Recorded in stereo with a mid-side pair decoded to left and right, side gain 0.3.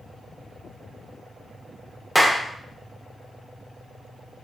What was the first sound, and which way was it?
A clap, 5° right.